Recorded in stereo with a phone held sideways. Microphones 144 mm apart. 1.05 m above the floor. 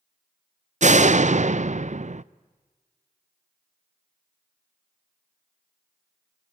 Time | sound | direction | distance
0.8 | a door slam | 55° right (ahead or behind) | 0.5 m